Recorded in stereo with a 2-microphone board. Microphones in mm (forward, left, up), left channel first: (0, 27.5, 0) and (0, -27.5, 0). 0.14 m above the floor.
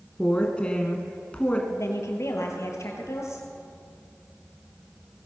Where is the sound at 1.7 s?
65° left (ahead or behind), 3 m.